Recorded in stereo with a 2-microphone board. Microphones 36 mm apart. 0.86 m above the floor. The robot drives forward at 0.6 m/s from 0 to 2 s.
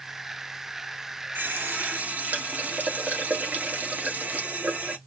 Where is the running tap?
70° right (ahead or behind), 0.8 m; by 5.0 s 50° right (ahead or behind), 1.0 m.